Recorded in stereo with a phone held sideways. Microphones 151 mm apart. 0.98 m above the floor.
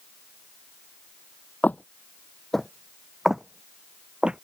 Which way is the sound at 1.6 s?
10° left (ahead or behind).